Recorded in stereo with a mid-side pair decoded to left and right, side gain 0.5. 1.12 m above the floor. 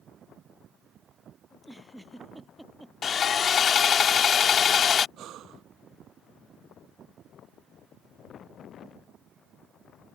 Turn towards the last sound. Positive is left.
turn(degrees=-65)